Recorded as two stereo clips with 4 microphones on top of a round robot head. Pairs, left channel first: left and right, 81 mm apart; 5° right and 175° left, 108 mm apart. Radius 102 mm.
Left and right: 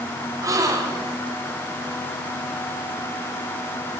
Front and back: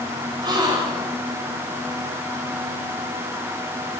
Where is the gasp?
135° right, 1.8 m.